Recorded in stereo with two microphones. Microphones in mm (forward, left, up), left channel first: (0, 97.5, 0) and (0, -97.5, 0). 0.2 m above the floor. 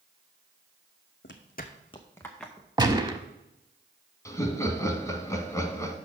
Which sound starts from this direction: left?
Footsteps, at 1.2 s.